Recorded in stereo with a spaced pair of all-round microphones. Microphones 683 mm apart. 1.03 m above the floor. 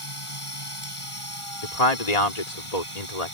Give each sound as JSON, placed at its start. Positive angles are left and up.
{"t": 0.0, "sound": "a machine running", "side_deg": 45}
{"t": 1.6, "sound": "a man speaking", "side_deg": 65}